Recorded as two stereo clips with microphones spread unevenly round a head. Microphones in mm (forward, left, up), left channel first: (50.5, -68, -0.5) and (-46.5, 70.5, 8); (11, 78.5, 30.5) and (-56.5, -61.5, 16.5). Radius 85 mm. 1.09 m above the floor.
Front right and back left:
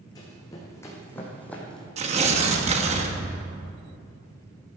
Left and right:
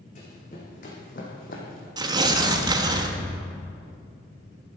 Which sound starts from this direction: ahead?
Running footsteps, at 0.1 s.